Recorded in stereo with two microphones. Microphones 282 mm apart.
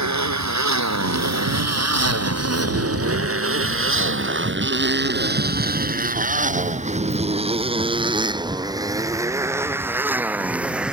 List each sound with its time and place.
0.0 s a motorcycle: 80° right; by 10.9 s 5° right (ahead or behind)